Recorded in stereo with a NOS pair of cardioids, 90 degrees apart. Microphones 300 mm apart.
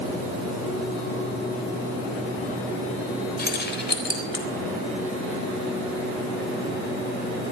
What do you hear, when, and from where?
3.4 s keys jangling: 30° left, 4 m; by 4.5 s 40° left, 4.5 m